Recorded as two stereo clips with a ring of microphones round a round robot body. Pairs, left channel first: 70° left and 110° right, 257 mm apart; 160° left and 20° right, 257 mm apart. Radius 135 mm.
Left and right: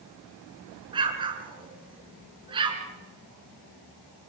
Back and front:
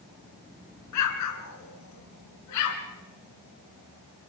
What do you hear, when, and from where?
0.9 s an explosion: 175° left, 3 m